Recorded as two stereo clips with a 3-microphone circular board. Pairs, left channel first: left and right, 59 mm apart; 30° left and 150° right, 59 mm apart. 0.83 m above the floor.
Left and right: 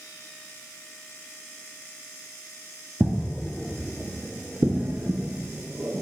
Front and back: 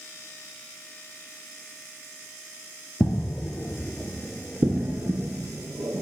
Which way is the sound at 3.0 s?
5° left.